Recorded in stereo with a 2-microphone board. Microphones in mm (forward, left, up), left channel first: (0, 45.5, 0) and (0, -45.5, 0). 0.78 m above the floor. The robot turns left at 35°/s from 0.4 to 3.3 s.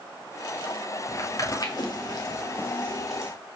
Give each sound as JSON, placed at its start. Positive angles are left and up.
{"t": 1.1, "sound": "footsteps", "side_deg": 30, "distance_m": 1.2}